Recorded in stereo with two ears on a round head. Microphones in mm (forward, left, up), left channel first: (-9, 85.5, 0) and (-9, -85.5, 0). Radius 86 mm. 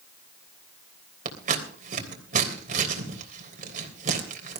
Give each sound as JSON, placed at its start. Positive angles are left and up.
{"t": 1.2, "sound": "scissors", "side_deg": -45, "distance_m": 3.0}